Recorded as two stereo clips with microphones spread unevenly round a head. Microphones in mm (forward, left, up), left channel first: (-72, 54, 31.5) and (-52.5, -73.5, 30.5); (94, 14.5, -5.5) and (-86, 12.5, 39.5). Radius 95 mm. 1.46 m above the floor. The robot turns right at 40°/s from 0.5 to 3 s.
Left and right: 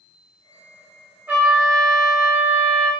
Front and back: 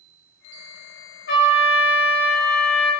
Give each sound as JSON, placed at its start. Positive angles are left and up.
{"t": 1.3, "sound": "a trumpet", "azimuth_deg": -5, "distance_m": 1.3}